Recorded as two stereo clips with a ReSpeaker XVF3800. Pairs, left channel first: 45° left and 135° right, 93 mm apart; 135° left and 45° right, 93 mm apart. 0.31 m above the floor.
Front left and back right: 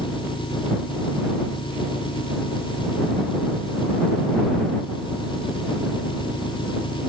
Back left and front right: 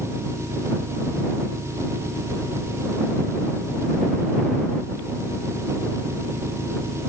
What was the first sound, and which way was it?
An engine running, 15° left.